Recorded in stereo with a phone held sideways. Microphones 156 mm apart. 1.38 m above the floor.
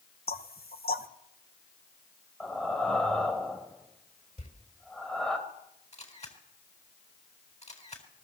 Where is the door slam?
50° left (ahead or behind), 4 m.